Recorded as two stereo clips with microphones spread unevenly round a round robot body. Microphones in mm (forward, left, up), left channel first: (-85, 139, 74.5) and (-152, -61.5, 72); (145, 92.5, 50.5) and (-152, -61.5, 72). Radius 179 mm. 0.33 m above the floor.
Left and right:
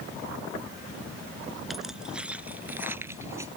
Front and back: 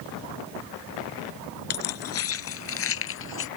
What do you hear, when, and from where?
1.7 s keys jangling: 20° right; by 3.5 s 30° right